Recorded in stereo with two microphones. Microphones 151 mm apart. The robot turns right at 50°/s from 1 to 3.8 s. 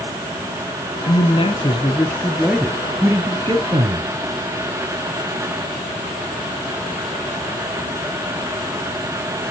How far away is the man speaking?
About 1.7 m.